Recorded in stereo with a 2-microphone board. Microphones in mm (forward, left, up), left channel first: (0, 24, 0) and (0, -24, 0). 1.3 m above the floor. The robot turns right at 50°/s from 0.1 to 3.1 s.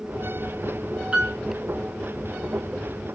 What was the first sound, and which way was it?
A piano, 20° right (ahead or behind).